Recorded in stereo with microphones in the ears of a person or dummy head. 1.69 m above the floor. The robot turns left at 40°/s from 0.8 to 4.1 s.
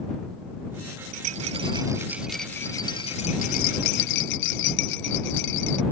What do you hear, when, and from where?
1.1 s a rattle: 135° right; by 5.8 s 110° left